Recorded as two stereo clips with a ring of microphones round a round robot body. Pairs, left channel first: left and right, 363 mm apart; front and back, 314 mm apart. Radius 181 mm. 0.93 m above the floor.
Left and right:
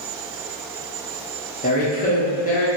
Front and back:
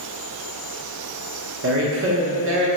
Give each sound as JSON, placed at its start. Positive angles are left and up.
{"t": 1.6, "sound": "a woman speaking", "azimuth_deg": 150, "distance_m": 0.9}